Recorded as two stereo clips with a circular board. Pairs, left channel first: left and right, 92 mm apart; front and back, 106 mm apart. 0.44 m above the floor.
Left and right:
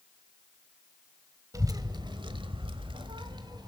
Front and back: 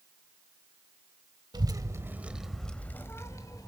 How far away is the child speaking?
About 1.3 m.